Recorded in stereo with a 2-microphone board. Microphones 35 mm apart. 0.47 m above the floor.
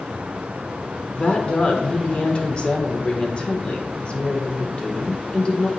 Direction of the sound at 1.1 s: 35° left (ahead or behind).